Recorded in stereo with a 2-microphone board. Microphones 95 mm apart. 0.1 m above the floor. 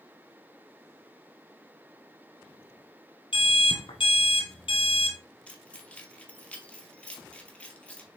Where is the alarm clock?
65° left (ahead or behind), 1.5 m.